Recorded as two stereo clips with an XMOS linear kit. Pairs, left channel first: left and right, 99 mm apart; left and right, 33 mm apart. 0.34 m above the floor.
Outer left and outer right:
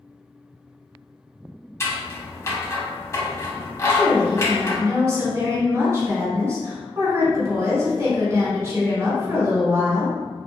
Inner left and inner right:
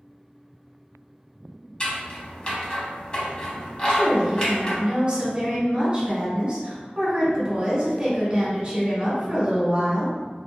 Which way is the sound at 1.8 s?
30° left (ahead or behind).